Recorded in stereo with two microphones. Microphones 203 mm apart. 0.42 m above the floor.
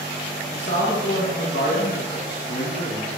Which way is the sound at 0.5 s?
60° left (ahead or behind).